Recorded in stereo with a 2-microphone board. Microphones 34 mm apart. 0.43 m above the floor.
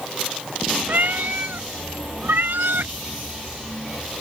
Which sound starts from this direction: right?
A cat meowing, at 0.9 s.